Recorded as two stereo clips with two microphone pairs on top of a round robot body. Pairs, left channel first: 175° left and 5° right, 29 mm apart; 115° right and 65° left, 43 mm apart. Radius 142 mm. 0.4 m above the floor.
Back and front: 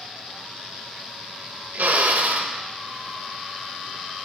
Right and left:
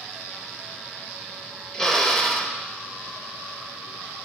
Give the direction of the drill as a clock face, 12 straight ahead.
1 o'clock.